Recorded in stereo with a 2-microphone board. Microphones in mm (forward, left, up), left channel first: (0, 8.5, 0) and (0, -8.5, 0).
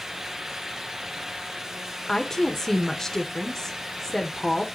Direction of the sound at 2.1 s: 20° left (ahead or behind).